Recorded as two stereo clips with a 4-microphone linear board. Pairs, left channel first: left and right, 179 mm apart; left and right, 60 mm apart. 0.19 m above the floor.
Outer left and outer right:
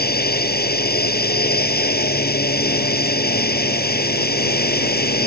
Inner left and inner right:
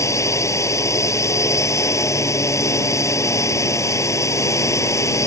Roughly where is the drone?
Left.